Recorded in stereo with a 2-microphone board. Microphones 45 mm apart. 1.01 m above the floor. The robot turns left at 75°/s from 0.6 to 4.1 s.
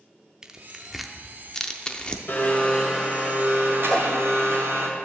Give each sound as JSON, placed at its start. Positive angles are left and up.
{"t": 0.4, "sound": "tearing paper", "side_deg": -15, "distance_m": 0.6}
{"t": 2.3, "sound": "a blender", "azimuth_deg": 50, "distance_m": 2.0}
{"t": 3.9, "sound": "a whoosh", "side_deg": 20, "distance_m": 0.8}